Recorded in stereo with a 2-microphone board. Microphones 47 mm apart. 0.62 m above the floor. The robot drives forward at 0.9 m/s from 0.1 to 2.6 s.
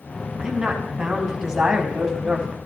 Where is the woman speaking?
10° right (ahead or behind), 6.5 m; by 2.6 s 15° right (ahead or behind), 5 m.